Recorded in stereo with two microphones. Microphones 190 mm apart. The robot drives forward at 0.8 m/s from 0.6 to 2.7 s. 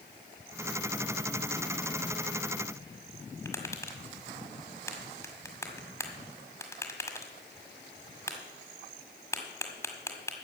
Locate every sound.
3.5 s tapping: 15° left (ahead or behind), 1.8 m